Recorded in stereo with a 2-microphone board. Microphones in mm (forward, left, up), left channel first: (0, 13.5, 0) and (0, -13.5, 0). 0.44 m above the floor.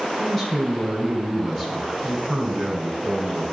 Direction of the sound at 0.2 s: 10° left (ahead or behind).